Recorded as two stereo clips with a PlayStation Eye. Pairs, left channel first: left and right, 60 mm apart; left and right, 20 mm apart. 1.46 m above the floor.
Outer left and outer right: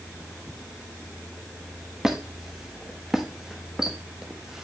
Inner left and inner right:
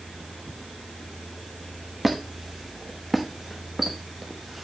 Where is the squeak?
10° right (ahead or behind), 1.0 m.